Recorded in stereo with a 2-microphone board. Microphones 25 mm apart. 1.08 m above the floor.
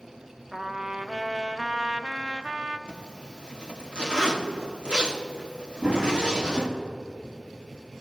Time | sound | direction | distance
0.5 | a trumpet | 30° right (ahead or behind) | 0.6 m
2.9 | a zipper | 40° right (ahead or behind) | 1.3 m
5.8 | running footsteps | 45° right (ahead or behind) | 3 m